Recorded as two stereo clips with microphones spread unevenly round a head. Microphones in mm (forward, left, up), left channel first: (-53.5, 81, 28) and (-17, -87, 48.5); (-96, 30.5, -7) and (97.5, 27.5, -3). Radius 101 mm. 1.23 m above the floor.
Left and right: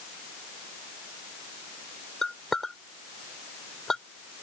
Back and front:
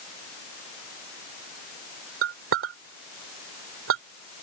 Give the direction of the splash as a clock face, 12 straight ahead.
I don't hear a splash.